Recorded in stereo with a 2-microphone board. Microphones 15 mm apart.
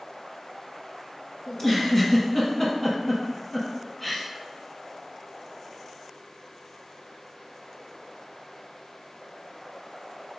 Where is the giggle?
30° left (ahead or behind), 0.9 m.